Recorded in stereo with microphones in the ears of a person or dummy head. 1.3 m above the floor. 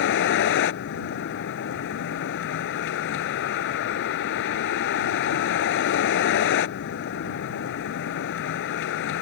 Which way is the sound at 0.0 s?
55° left (ahead or behind).